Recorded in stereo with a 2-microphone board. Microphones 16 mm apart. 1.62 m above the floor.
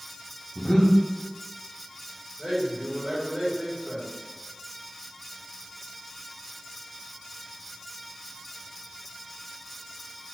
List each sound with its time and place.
0.6 s breathing: 45° left (ahead or behind), 0.9 m
2.4 s a man speaking: 70° right (ahead or behind), 2 m